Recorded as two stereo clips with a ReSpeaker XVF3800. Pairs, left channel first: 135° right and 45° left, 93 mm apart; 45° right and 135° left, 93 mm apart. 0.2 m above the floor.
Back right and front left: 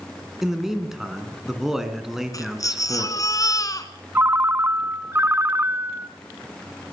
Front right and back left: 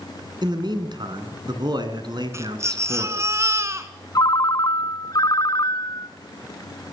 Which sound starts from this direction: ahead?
A ringtone, at 4.2 s.